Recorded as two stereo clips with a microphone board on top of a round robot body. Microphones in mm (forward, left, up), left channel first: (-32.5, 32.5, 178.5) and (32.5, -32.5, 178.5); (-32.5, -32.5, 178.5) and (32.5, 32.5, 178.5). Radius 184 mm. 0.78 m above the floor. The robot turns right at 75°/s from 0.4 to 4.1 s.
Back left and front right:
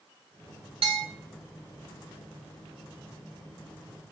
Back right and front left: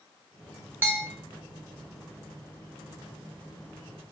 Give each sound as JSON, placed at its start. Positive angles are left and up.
{"t": 0.8, "sound": "a bell", "azimuth_deg": -25, "distance_m": 0.6}